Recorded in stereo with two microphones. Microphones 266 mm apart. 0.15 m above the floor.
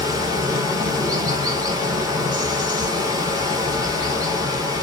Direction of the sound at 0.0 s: 15° right (ahead or behind).